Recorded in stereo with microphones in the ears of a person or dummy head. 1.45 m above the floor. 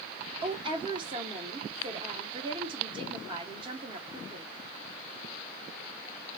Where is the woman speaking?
35° right (ahead or behind), 1.4 m.